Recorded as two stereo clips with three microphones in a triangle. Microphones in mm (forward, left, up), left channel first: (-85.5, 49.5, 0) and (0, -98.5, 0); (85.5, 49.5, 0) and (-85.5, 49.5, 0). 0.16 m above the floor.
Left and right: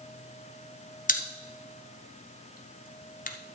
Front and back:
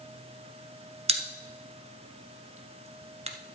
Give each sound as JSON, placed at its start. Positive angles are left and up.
{"t": 1.1, "sound": "a pop", "azimuth_deg": 135, "distance_m": 1.1}